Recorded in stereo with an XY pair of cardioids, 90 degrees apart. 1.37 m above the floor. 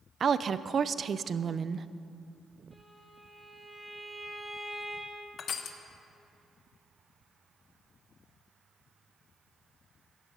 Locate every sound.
0.2 s a woman speaking: 50° right, 0.7 m
2.7 s a violin: straight ahead, 4 m
5.4 s crushing: 65° left, 1.3 m